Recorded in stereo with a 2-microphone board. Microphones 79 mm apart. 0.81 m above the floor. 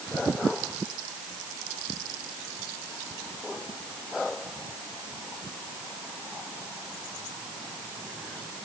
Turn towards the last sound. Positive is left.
No sound to turn to.